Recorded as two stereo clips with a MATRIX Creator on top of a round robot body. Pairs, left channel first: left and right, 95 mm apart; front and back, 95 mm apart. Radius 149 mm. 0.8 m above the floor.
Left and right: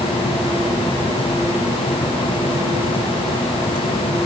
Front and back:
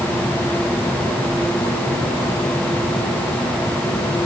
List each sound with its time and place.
Only background noise.